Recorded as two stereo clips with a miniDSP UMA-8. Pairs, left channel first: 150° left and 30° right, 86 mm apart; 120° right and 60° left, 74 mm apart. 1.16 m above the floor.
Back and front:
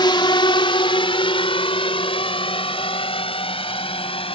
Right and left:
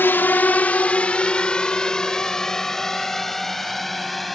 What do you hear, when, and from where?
0.0 s a drone: straight behind; by 4.3 s 150° left